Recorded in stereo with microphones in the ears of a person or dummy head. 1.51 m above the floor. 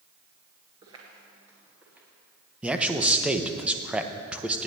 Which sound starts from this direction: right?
Footsteps, at 0.8 s.